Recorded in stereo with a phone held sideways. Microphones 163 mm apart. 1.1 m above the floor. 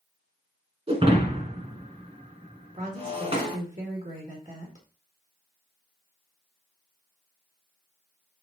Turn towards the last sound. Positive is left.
turn(degrees=-50)  # may be behind; listen again after turning